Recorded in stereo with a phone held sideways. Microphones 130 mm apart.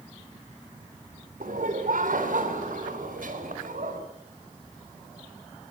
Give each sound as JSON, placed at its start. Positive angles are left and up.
{"t": 1.4, "sound": "laughter", "side_deg": -85, "distance_m": 3.0}